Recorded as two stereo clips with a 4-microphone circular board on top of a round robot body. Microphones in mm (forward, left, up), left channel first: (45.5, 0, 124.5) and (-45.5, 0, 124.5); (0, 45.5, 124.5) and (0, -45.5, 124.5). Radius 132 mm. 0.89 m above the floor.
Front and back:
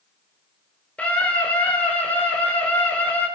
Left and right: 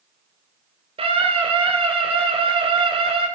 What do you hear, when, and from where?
1.0 s a scream: 75° right, 4 m